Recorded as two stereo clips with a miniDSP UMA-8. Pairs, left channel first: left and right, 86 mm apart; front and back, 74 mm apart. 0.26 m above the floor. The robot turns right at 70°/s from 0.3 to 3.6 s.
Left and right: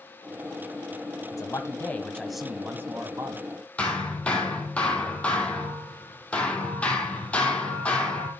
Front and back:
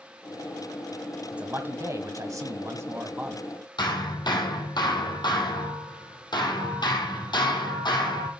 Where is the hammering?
15° left, 2.5 m.